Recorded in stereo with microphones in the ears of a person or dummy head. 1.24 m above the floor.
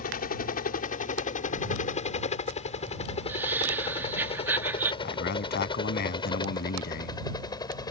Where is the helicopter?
45° left (ahead or behind); by 7.9 s 20° left (ahead or behind).